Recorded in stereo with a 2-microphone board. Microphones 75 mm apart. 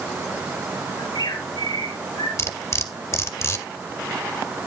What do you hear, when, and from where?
1.0 s a bird: 80° left, 4 m
2.4 s cutlery clinking: 40° left (ahead or behind), 1.3 m